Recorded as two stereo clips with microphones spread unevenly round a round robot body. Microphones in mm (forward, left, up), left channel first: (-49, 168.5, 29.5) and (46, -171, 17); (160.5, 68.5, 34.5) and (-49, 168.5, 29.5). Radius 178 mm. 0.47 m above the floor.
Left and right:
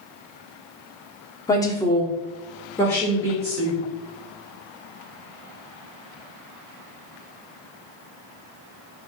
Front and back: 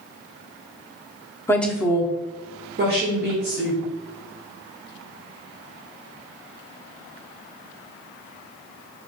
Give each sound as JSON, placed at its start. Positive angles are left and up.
{"t": 1.5, "sound": "a woman speaking", "azimuth_deg": 35, "distance_m": 0.7}